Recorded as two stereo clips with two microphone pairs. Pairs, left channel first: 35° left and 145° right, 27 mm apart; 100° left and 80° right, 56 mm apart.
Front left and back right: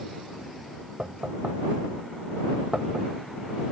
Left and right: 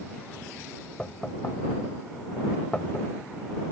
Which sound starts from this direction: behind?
Knocking, at 1.0 s.